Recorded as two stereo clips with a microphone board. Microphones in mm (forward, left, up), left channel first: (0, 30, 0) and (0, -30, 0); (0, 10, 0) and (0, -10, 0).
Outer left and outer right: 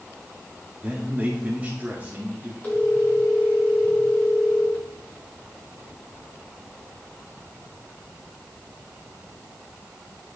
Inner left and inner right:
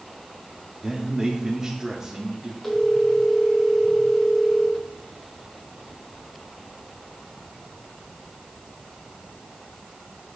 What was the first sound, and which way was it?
A man speaking, 25° right (ahead or behind).